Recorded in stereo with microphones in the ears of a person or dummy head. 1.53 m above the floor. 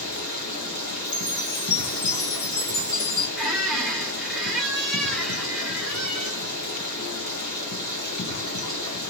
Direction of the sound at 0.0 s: 55° left (ahead or behind).